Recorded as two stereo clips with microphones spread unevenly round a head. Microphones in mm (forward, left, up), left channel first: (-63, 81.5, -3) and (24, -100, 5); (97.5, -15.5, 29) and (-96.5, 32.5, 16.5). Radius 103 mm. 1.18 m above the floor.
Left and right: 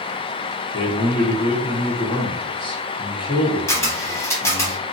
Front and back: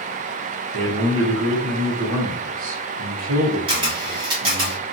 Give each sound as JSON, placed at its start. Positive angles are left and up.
{"t": 0.7, "sound": "a man speaking", "azimuth_deg": 180, "distance_m": 1.0}
{"t": 3.7, "sound": "a camera shutter", "azimuth_deg": 170, "distance_m": 1.0}